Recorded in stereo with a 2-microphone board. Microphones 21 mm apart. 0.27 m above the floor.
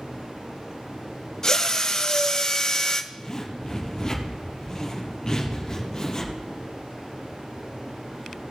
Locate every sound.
1.4 s a drill: 35° left (ahead or behind), 1.2 m
3.1 s a zipper: 30° left (ahead or behind), 3 m